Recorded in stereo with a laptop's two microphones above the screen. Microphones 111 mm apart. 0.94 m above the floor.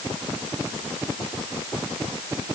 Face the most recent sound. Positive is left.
No sound to turn to.